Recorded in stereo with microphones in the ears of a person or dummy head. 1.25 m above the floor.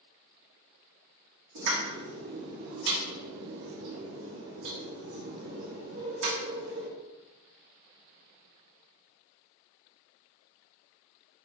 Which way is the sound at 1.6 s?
75° right (ahead or behind).